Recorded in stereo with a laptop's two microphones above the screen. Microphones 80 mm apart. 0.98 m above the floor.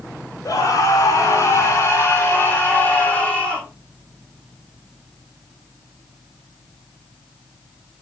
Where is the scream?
55° left (ahead or behind), 4 m; by 3.7 s 15° left (ahead or behind), 2 m.